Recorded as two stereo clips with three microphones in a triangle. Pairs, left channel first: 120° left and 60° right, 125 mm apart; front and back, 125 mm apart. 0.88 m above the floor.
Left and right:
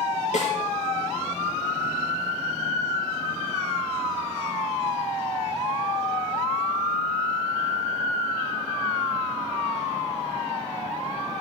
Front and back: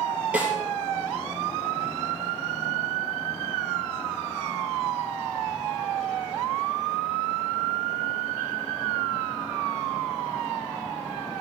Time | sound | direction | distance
0.3 | a snare drum | 100° left | 4 m